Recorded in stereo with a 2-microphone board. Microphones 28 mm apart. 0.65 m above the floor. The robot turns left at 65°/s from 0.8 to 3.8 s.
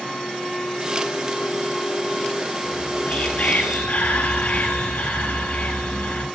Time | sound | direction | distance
2.6 | whispering | 145° left | 10 m